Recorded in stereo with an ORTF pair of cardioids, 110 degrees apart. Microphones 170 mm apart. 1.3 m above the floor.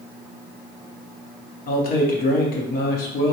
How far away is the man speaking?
About 0.9 m.